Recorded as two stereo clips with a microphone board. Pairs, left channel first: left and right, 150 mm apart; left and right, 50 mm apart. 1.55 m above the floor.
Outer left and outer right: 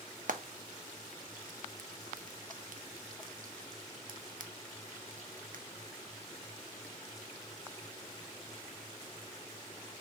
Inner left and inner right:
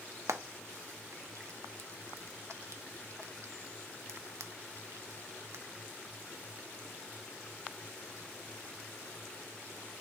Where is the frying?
65° right (ahead or behind), 0.6 m.